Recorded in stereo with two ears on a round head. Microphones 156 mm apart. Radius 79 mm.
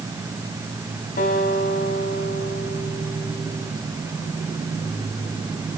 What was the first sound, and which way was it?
A guitar, 55° left (ahead or behind).